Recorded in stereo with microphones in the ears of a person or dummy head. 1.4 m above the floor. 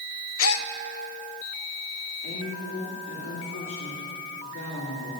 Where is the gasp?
80° left, 0.6 m.